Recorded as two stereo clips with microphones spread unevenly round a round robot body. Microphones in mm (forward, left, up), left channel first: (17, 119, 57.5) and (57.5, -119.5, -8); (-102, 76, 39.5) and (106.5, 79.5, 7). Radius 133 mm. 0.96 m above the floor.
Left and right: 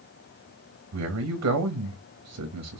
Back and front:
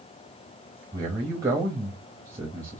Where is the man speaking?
75° right, 0.9 m.